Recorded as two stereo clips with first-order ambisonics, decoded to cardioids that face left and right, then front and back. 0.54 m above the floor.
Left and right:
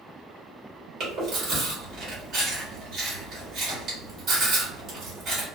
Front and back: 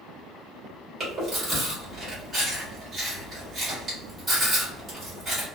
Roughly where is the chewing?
Behind right.